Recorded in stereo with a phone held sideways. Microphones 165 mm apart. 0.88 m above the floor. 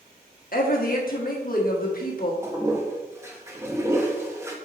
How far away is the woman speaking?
About 1.5 m.